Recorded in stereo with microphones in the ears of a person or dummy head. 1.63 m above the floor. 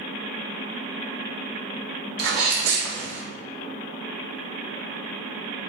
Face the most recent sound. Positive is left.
turn(degrees=-70)  # may be behind; listen again after turning